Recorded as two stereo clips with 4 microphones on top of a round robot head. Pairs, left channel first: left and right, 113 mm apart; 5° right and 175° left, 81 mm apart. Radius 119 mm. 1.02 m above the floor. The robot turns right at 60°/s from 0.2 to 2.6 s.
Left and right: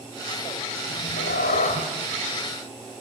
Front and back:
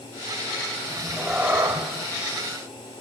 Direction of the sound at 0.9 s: 65° left.